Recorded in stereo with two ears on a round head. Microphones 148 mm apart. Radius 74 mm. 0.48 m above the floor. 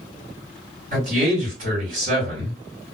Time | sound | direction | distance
0.9 | a man speaking | 45° right (ahead or behind) | 2.0 m